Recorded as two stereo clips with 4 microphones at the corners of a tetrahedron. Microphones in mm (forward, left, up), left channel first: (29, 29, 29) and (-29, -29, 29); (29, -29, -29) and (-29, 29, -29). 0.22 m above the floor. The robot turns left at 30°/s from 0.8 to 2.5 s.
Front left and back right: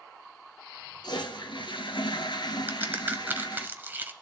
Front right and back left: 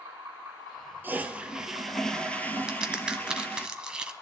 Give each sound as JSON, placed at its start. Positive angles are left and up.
{"t": 1.0, "sound": "a toilet flushing", "azimuth_deg": 70, "distance_m": 1.2}
{"t": 2.7, "sound": "a crack", "azimuth_deg": -160, "distance_m": 0.9}